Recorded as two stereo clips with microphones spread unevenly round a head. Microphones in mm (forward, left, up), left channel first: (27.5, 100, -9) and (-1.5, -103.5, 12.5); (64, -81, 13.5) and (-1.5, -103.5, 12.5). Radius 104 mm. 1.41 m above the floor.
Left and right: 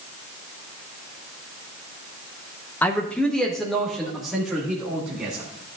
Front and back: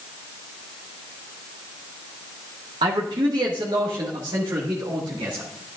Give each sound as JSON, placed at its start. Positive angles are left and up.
{"t": 2.8, "sound": "a man speaking", "azimuth_deg": 165, "distance_m": 0.9}